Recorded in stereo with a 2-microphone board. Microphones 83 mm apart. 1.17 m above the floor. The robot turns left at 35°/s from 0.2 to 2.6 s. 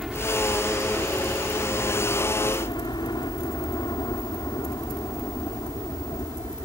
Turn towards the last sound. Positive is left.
turn(degrees=60)  # may be behind; listen again after turning